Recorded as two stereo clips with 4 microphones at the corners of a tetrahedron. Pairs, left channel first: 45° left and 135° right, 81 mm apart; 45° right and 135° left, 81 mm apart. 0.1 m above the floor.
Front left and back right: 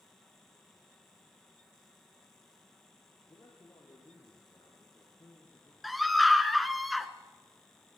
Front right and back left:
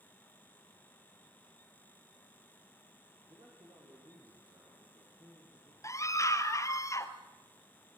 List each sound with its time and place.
3.3 s a man speaking: 95° left, 6.5 m
5.8 s a scream: 45° right, 1.8 m